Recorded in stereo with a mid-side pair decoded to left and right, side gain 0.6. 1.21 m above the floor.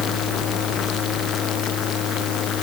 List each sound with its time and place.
Only background noise.